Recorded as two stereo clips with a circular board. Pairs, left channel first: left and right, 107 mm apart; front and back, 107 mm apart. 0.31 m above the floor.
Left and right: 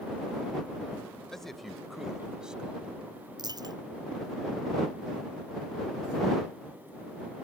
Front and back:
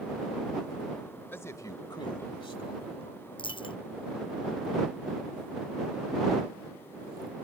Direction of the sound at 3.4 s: 40° right.